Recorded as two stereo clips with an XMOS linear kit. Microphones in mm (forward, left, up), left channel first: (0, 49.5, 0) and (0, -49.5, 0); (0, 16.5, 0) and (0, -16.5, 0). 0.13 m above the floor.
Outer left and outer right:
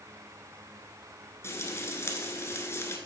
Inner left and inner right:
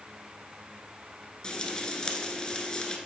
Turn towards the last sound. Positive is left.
turn(degrees=30)  # may be behind; listen again after turning